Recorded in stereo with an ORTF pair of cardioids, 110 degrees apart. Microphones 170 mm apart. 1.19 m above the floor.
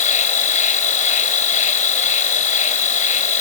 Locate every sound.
0.0 s an insect: 45° left